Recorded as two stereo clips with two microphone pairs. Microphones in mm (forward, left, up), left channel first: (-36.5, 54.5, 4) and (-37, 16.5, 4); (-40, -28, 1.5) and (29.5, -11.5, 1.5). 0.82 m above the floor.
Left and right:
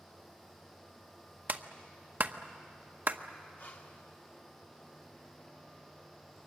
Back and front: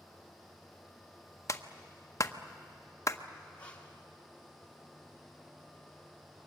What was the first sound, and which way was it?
A clap, 130° right.